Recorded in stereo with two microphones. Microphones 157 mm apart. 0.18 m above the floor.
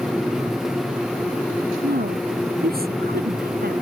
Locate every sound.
1.8 s a woman speaking: 80° right; by 3.8 s 85° right